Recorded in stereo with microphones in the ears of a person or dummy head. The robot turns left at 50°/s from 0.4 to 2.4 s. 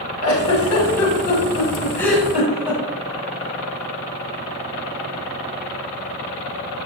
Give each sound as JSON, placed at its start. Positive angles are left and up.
{"t": 0.2, "sound": "a giggle", "side_deg": 85, "distance_m": 4.5}